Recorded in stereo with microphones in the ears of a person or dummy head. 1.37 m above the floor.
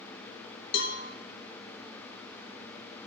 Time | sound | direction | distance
0.7 | a cowbell | 70° left (ahead or behind) | 0.6 m